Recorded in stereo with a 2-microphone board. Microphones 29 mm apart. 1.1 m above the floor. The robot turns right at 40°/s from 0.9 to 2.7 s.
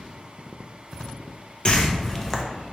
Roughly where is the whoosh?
Left.